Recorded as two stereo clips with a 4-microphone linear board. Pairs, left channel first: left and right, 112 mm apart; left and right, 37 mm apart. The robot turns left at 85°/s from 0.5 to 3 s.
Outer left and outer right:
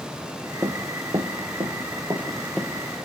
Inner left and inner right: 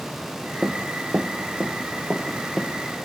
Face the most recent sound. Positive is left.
turn(degrees=15)  # may be behind; listen again after turning